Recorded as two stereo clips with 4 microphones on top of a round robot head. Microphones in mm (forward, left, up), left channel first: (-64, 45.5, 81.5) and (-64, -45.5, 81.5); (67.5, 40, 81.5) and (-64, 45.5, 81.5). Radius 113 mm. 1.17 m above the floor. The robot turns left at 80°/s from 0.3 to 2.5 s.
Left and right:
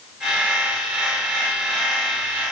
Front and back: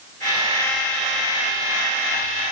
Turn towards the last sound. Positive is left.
No sound to turn to.